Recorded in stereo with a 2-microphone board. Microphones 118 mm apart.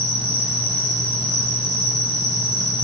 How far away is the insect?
About 1.1 m.